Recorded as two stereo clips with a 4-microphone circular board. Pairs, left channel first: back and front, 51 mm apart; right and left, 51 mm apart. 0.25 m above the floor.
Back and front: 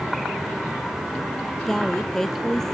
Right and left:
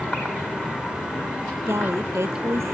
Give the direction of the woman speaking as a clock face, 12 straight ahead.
9 o'clock.